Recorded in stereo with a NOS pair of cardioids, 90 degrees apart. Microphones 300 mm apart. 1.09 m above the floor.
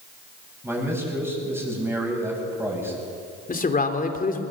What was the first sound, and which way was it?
A man speaking, 10° right.